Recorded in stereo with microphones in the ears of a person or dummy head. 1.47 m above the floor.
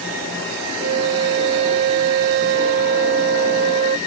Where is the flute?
55° right (ahead or behind).